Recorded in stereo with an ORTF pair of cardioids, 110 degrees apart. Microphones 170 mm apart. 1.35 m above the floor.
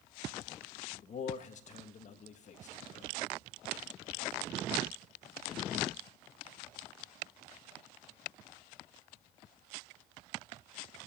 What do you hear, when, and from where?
1.0 s a man speaking: 45° left, 1.7 m